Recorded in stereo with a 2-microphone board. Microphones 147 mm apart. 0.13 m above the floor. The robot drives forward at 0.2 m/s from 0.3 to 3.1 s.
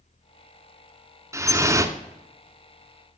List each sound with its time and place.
1.3 s dripping: 20° right (ahead or behind), 0.8 m